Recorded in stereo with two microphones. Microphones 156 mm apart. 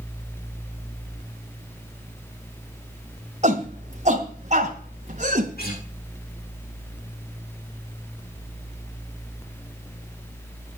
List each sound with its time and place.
3.4 s a shout: 50° right (ahead or behind), 2 m
5.6 s a guitar: 80° left, 7 m